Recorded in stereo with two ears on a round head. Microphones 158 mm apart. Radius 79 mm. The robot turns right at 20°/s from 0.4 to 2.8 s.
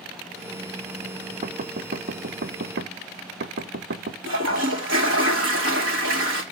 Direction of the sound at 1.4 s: 40° right (ahead or behind).